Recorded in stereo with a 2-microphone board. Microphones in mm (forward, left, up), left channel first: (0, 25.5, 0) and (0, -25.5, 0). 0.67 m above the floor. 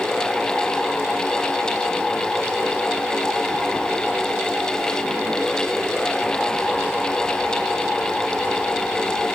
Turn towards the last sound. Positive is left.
No sound to turn to.